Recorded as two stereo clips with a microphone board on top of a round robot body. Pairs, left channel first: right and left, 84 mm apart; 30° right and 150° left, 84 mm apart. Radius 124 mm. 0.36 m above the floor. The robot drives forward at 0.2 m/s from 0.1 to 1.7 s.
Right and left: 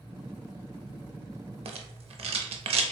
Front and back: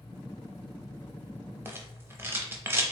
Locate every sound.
1.6 s a rattle: 85° left, 0.5 m